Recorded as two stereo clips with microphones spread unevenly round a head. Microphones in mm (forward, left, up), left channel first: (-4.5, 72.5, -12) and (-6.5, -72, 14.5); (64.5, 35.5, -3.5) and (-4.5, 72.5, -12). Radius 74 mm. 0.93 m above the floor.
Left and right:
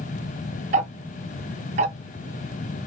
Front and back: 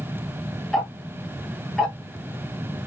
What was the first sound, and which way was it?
Ticking, 120° right.